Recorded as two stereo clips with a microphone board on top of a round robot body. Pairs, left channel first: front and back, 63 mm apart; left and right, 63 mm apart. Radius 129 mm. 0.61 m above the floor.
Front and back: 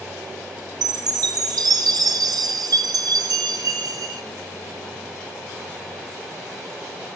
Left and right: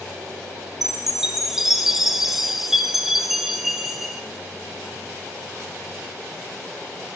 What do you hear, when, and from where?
0.8 s a chime: 175° right, 1.4 m